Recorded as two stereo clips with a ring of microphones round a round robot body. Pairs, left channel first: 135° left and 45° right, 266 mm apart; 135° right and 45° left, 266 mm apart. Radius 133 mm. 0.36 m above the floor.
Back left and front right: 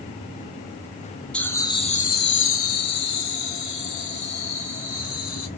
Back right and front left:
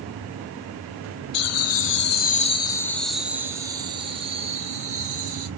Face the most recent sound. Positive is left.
turn(degrees=105)